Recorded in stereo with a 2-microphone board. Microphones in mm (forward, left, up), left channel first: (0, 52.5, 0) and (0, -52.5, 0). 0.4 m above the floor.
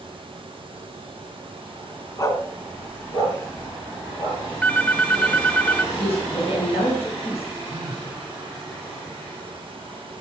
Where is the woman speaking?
75° left (ahead or behind), 3.5 m.